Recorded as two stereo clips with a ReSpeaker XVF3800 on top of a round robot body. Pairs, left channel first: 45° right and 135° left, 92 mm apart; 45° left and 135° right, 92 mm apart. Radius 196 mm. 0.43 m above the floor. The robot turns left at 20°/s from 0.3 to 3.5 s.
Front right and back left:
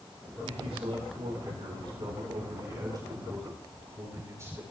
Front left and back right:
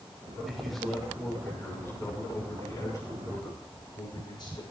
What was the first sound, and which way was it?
A man speaking, 140° left.